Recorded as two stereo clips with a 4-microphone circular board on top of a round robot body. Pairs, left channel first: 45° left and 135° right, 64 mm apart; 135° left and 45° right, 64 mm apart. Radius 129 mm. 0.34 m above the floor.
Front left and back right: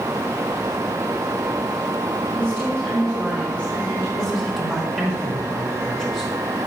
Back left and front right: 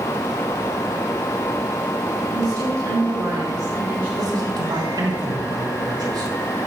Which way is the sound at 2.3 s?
30° right.